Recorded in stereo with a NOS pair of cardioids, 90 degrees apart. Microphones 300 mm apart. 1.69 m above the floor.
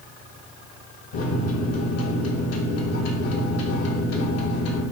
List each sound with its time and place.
1.1 s a microwave: 55° left, 1.1 m